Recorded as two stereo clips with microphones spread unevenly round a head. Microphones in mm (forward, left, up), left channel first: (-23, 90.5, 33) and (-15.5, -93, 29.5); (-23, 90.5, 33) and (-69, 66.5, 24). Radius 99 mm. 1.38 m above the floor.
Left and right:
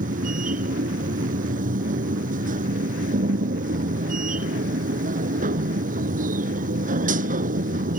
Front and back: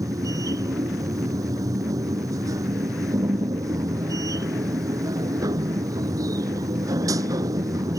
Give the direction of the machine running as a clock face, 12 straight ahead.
4 o'clock.